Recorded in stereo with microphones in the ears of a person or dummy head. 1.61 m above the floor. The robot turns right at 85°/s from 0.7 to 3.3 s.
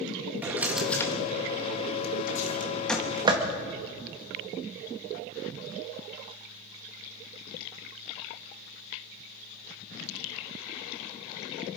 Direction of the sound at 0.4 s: 10° right (ahead or behind).